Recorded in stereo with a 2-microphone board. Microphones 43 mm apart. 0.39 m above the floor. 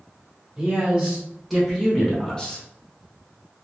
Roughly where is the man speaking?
Centre.